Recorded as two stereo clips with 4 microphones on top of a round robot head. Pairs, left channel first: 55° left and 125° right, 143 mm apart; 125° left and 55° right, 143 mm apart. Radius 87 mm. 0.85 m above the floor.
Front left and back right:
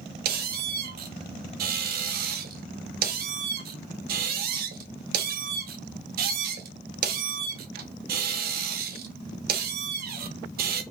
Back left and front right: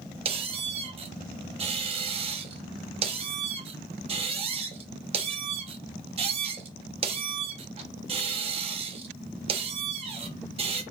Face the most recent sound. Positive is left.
turn(degrees=-105)